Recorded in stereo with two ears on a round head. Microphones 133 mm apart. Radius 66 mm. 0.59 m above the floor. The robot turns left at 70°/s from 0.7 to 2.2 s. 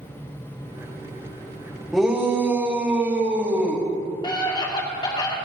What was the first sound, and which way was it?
A shout, 5° left (ahead or behind).